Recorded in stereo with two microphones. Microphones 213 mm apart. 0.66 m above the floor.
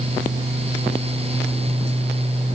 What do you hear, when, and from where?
Only background noise.